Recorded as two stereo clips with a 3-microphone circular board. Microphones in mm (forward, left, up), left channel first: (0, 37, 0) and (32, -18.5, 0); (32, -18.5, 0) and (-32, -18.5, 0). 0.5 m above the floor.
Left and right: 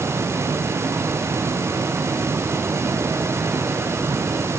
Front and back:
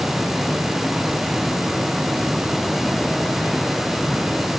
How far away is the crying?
No crying in this recording.